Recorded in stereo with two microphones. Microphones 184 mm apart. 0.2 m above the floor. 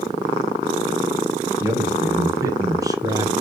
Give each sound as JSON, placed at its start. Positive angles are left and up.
{"t": 1.6, "sound": "a man speaking", "side_deg": -15, "distance_m": 2.5}